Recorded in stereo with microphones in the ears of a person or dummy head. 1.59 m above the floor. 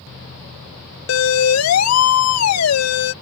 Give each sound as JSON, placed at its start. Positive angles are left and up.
{"t": 1.1, "sound": "a siren", "side_deg": 70}